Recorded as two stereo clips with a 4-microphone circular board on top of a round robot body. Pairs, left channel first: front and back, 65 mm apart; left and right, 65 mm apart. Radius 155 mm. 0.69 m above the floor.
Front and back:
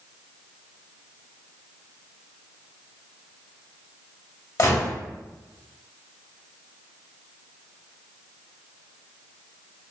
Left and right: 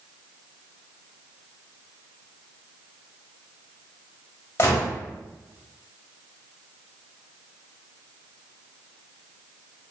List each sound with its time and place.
4.6 s a gunshot: 35° left, 1.4 m